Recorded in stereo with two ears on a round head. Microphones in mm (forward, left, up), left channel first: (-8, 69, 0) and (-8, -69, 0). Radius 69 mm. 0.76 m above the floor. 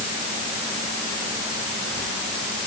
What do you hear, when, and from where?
Only background noise.